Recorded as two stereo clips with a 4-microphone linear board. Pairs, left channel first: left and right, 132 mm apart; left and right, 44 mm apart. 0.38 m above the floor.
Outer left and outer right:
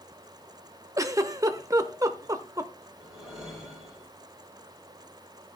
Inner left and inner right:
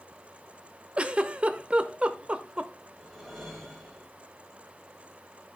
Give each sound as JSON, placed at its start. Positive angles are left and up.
{"t": 1.0, "sound": "a giggle", "side_deg": -25, "distance_m": 0.6}
{"t": 3.0, "sound": "a whoosh", "side_deg": 0, "distance_m": 3.5}